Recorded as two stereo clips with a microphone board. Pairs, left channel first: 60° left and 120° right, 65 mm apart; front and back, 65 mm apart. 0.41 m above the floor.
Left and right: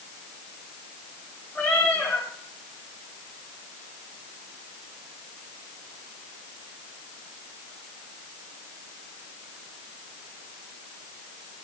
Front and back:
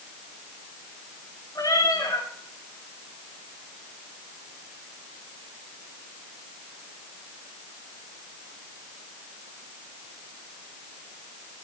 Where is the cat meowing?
5° left, 8 m.